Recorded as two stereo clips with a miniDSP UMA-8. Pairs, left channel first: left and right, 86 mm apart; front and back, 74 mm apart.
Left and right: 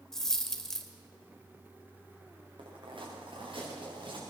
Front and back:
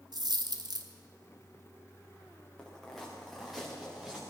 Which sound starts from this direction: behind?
A dropped coin, at 0.1 s.